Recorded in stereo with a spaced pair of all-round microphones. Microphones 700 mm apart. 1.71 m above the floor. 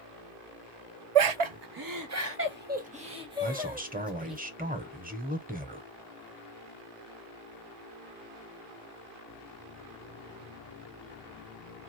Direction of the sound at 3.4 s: 15° right (ahead or behind).